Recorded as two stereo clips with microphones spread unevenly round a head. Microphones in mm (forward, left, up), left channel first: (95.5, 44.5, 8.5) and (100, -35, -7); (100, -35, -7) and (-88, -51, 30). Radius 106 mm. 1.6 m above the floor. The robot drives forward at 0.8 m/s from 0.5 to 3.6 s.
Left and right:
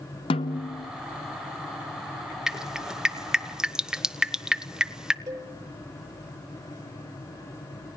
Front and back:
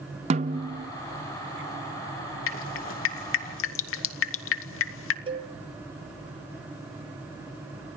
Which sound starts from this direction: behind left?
A snare drum, at 0.3 s.